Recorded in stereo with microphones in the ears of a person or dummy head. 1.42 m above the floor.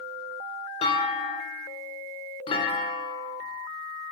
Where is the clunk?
25° left (ahead or behind), 1.1 m.